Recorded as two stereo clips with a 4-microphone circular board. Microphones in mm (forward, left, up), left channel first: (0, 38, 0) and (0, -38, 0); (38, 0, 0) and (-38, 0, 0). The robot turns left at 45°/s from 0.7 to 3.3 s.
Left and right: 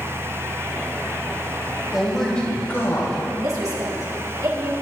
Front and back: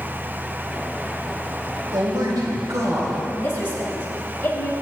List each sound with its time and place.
1.9 s a man speaking: 175° right, 3.5 m; by 3.2 s 125° left, 3.5 m
3.3 s a woman speaking: 60° right, 3.5 m